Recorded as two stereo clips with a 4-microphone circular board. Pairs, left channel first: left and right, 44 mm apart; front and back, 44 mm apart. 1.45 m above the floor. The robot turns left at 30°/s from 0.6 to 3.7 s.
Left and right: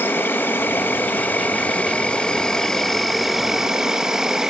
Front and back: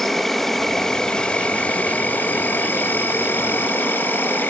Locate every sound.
0.0 s an insect: 80° left, 1.0 m; by 4.5 s 15° right, 1.0 m